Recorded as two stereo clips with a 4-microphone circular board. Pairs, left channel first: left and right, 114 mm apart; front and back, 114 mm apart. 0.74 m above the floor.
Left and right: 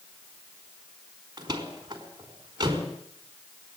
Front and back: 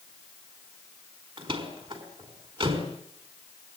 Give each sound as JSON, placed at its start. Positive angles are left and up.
{"t": 1.4, "sound": "a door slam", "azimuth_deg": -140, "distance_m": 4.5}